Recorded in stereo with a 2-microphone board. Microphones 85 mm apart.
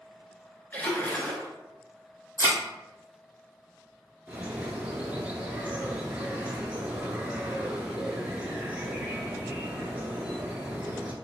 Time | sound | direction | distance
0.7 | a splash | 20° left (ahead or behind) | 0.9 m
2.4 | a thud | 40° left (ahead or behind) | 1.3 m
4.3 | a bird | 15° right (ahead or behind) | 0.7 m